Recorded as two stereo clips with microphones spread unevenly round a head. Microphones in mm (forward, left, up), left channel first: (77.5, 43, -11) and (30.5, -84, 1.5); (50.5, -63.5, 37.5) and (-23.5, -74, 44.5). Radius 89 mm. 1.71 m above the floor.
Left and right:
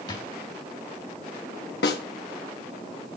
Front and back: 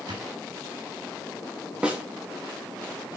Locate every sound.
0.1 s a drawer: 135° left, 1.7 m
1.8 s a snare drum: 105° left, 1.9 m